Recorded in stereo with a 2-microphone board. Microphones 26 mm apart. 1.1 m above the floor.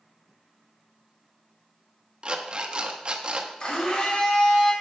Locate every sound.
2.2 s an alarm clock: 35° right (ahead or behind), 1.0 m
3.6 s a blender: 40° left (ahead or behind), 3.5 m